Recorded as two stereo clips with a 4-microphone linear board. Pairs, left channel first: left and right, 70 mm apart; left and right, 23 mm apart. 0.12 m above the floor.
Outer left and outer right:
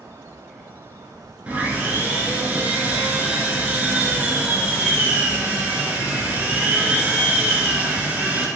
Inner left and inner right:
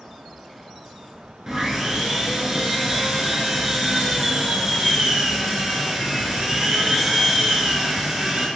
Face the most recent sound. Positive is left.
turn(degrees=-25)  # may be behind; listen again after turning